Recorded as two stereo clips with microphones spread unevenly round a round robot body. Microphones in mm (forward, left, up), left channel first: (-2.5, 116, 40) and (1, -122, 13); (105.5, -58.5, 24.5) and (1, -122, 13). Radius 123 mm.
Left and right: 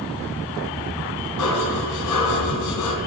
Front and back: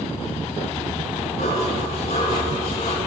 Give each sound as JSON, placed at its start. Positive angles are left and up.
{"t": 1.4, "sound": "dishes clattering", "azimuth_deg": 90, "distance_m": 2.5}